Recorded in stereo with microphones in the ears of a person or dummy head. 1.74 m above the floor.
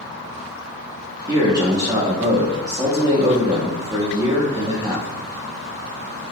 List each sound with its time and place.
1.3 s a man speaking: 20° right (ahead or behind), 0.6 m